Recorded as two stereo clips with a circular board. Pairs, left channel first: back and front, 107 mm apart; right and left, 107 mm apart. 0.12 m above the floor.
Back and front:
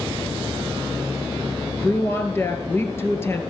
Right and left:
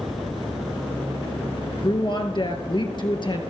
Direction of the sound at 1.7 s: 115° right.